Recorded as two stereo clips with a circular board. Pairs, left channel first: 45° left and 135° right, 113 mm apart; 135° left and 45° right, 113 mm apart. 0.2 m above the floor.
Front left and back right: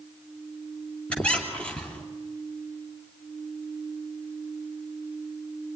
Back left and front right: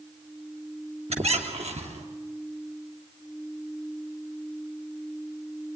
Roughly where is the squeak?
Ahead right.